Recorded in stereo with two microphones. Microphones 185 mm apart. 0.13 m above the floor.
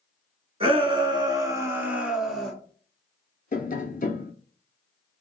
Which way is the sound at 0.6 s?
30° right (ahead or behind).